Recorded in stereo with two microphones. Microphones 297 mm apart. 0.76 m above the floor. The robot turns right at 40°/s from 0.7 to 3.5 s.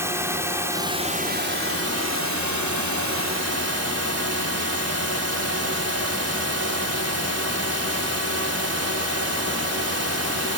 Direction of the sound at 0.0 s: 170° right.